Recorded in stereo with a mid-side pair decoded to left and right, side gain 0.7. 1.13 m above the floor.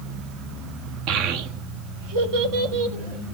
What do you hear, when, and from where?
1.1 s a child speaking: 65° right, 1.1 m; by 3.4 s 75° right, 2.5 m